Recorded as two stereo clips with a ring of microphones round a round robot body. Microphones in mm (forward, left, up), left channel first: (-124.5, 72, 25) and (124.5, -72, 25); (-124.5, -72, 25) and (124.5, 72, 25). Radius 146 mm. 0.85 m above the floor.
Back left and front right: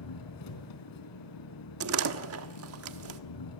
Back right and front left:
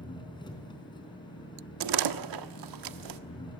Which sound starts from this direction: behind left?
An engine running, at 0.0 s.